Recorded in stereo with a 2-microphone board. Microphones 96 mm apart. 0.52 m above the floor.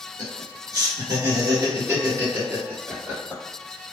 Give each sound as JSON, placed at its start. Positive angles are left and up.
{"t": 0.2, "sound": "laughter", "side_deg": -40, "distance_m": 1.7}